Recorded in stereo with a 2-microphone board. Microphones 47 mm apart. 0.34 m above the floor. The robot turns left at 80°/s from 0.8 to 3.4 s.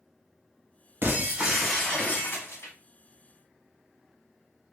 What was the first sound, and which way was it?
Breaking glass, 130° right.